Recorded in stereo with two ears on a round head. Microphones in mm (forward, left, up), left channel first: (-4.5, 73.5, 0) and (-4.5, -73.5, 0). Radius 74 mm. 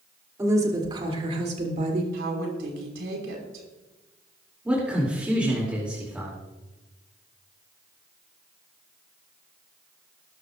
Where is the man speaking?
10° right (ahead or behind), 2.5 m.